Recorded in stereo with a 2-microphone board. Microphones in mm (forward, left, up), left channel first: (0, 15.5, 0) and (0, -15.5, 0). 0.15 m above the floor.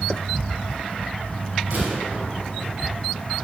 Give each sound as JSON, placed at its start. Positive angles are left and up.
{"t": 1.7, "sound": "a gunshot", "side_deg": -60, "distance_m": 3.5}